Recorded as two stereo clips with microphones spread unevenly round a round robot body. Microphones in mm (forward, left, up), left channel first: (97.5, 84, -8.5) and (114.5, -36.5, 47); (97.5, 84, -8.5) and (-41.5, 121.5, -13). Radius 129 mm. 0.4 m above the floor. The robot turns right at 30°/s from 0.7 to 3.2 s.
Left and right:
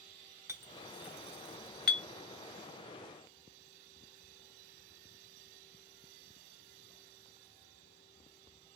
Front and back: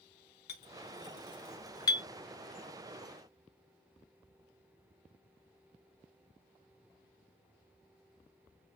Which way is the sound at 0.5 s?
5° left.